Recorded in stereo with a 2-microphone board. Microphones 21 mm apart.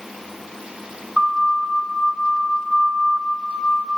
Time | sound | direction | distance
1.2 | a siren | 10° right (ahead or behind) | 7 m